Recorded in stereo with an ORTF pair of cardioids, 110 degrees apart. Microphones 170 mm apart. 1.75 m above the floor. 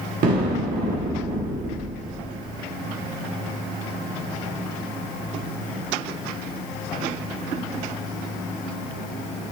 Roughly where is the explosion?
Ahead right.